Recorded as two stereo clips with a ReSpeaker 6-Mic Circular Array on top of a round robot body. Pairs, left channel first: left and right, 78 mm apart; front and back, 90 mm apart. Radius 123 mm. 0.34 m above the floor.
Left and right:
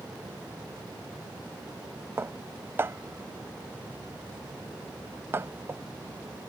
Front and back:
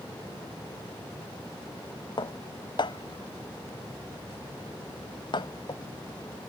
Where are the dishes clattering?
30° right.